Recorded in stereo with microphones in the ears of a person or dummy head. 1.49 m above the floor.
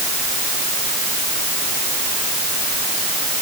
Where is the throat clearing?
I don't hear throat clearing.